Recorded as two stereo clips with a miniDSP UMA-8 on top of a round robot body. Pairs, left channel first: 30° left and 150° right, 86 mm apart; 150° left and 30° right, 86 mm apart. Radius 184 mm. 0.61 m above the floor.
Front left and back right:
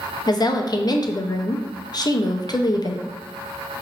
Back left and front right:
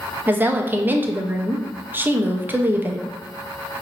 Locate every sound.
0.3 s a woman speaking: 30° left, 0.7 m